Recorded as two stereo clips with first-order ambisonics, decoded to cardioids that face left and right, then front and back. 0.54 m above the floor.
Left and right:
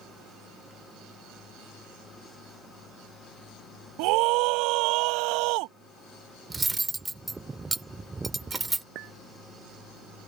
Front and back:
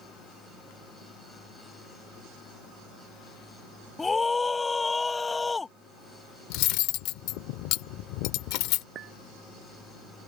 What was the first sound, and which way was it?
A scream, 75° right.